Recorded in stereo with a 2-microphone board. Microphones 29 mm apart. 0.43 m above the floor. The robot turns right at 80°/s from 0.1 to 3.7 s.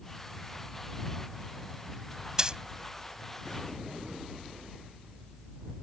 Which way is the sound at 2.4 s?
25° right (ahead or behind).